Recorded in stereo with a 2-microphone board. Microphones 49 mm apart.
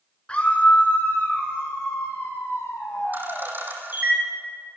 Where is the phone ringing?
No phone ringing in this recording.